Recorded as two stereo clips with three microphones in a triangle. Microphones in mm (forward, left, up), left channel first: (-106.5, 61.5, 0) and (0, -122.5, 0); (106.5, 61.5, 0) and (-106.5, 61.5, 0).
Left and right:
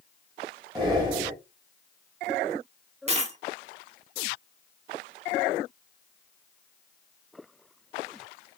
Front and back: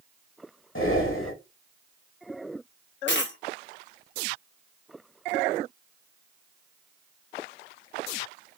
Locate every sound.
0.8 s breathing: 10° left, 1.1 m
3.1 s a dropped coin: 10° right, 0.7 m